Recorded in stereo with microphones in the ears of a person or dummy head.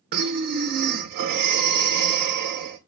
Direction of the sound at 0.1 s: 55° right (ahead or behind).